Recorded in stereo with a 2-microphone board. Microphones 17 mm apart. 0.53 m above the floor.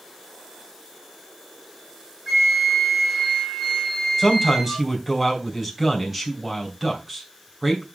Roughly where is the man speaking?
Centre.